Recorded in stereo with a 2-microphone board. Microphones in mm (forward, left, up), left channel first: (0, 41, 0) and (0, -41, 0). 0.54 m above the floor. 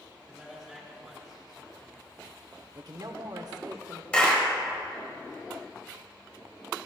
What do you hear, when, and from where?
0.3 s a man speaking: centre (ahead or behind), 5 m
2.8 s a woman speaking: 55° right (ahead or behind), 1.1 m
4.1 s a clap: 15° left (ahead or behind), 2.5 m